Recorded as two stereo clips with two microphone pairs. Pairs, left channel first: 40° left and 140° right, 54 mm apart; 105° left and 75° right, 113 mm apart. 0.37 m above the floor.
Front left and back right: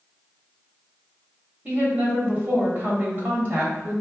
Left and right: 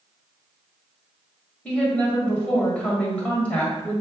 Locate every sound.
1.6 s a woman speaking: 175° right, 1.3 m